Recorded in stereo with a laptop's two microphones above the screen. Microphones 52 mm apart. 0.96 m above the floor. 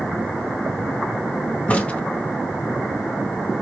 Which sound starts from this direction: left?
A crack, at 1.7 s.